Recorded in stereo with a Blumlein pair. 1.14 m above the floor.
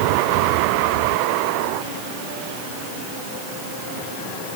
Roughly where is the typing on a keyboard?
I don't hear typing on a keyboard.